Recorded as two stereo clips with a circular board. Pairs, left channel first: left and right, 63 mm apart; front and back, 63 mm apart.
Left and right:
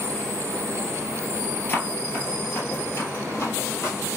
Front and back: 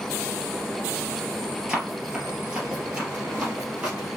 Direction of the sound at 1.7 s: 110° left.